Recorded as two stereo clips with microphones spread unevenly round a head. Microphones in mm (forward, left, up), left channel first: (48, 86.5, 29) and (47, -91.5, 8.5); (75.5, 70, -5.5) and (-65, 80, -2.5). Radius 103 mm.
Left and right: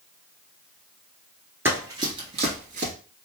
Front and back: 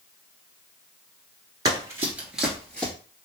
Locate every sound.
1.6 s running footsteps: 170° right, 1.1 m; by 2.9 s 80° right, 1.2 m